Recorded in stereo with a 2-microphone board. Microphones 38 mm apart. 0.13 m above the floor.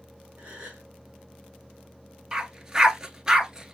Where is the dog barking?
15° right (ahead or behind), 0.6 m.